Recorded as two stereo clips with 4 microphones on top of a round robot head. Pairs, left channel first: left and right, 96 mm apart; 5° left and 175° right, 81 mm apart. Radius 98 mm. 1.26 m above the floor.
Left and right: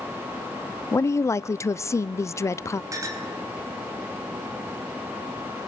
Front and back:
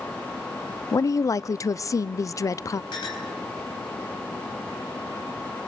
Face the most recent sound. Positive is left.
turn(degrees=-35)